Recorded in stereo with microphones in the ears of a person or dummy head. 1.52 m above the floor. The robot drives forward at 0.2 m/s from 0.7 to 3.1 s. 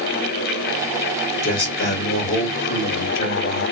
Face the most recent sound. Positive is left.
turn(degrees=35)  # may be behind; listen again after turning